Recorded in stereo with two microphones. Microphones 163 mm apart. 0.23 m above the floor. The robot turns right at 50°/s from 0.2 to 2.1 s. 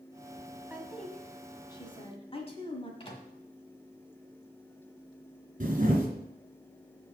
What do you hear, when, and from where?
0.7 s a woman speaking: 10° right (ahead or behind), 1.7 m; by 2.9 s 35° left (ahead or behind), 1.7 m
3.0 s a microwave: 35° left (ahead or behind), 1.5 m
5.6 s a camera shutter: 50° right (ahead or behind), 2.5 m